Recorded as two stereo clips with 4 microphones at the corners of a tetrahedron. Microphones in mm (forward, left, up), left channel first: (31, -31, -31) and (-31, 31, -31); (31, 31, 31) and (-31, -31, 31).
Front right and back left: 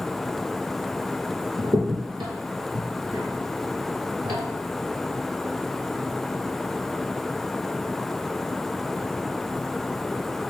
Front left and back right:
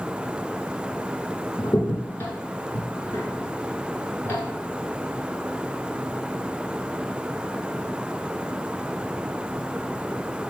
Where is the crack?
105° left, 1.2 m.